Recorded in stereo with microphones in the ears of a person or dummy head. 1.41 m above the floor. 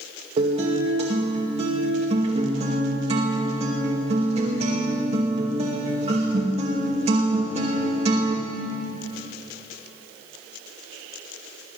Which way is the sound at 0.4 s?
40° right (ahead or behind).